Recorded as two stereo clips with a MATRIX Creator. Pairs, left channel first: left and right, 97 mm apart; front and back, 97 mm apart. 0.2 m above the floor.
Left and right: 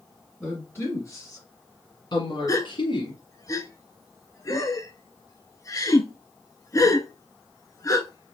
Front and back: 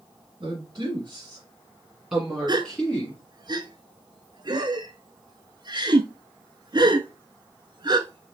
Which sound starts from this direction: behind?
A woman speaking, at 0.4 s.